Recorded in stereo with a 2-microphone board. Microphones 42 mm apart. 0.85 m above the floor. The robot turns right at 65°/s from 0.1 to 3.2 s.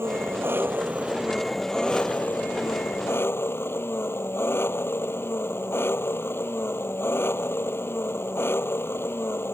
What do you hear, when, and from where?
0.0 s an engine running: 95° right; by 9.5 s 110° left